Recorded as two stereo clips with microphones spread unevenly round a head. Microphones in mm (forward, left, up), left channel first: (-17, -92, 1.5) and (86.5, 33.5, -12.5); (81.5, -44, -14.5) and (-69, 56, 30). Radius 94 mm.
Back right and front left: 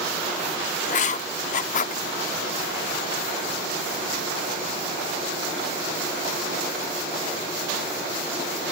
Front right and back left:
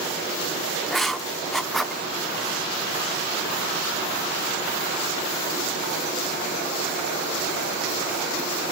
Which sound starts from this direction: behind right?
Writing, at 0.9 s.